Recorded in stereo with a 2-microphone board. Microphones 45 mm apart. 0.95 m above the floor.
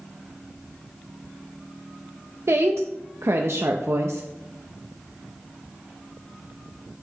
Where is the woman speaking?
70° right (ahead or behind), 0.5 m.